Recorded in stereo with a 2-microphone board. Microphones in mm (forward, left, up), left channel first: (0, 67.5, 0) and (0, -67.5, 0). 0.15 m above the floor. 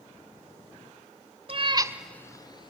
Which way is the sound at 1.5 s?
45° right (ahead or behind).